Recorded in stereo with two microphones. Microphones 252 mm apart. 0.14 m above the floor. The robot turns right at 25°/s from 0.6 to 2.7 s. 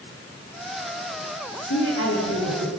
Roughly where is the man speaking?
Left.